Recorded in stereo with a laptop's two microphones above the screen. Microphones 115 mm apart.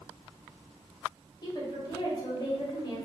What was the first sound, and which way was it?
A woman speaking, 35° left (ahead or behind).